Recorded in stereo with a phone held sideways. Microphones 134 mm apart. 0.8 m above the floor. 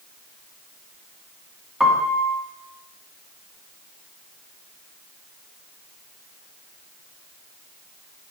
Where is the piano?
5° right (ahead or behind), 1.7 m.